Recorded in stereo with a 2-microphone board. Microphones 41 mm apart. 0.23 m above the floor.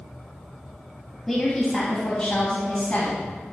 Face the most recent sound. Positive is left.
turn(degrees=35)  # may be behind; listen again after turning